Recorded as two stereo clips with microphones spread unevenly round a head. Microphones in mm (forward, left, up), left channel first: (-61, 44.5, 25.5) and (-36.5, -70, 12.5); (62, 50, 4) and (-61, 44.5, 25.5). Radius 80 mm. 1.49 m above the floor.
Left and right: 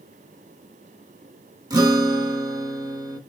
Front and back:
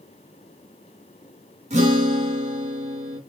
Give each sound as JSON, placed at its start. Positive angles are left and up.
{"t": 1.7, "sound": "a guitar", "azimuth_deg": -135, "distance_m": 3.5}